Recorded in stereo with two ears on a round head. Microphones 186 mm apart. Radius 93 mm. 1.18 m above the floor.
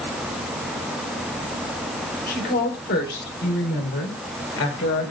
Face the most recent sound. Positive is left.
turn(degrees=80)